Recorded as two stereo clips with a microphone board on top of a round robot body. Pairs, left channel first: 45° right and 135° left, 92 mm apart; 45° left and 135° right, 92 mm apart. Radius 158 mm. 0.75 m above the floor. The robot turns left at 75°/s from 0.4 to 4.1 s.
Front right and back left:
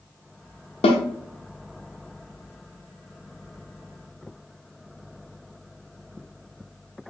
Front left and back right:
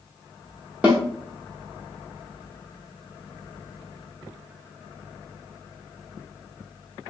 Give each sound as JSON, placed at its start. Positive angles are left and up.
{"t": 0.8, "sound": "a snare drum", "azimuth_deg": -60, "distance_m": 0.6}